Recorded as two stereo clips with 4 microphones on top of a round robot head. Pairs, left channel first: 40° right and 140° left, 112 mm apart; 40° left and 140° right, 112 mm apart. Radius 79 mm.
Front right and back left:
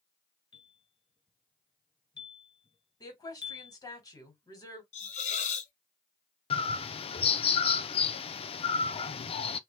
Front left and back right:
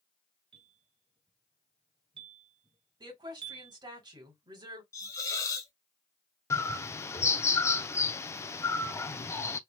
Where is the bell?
90° right, 2 m.